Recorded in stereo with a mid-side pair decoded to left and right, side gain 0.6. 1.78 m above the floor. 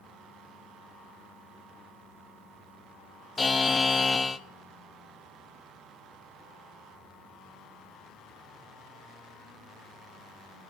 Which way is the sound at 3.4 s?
20° left.